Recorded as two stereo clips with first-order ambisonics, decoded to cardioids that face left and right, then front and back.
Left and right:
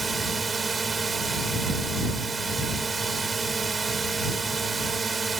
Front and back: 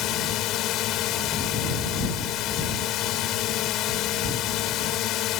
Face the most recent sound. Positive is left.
turn(degrees=-20)